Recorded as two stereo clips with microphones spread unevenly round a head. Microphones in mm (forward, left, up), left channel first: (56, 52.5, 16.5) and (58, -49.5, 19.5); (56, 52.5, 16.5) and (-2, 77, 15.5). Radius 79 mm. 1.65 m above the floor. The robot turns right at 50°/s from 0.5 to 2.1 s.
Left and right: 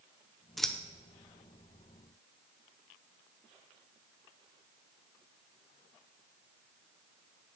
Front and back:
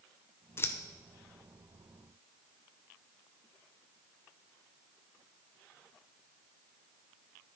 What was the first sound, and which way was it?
Scissors, straight ahead.